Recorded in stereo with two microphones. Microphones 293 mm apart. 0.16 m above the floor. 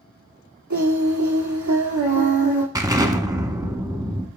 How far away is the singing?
About 1.7 m.